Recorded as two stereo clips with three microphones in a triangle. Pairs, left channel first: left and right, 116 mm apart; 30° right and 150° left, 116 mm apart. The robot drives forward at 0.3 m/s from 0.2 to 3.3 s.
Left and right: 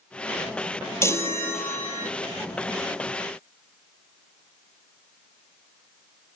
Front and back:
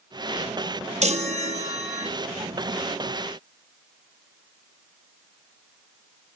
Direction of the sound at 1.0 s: 155° left.